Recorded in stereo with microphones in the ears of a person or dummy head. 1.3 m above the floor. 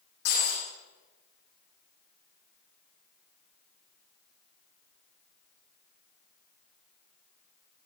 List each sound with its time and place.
0.2 s breaking glass: 80° left, 9 m